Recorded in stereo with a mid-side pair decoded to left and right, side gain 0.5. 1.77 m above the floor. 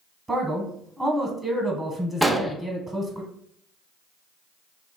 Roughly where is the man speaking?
Ahead.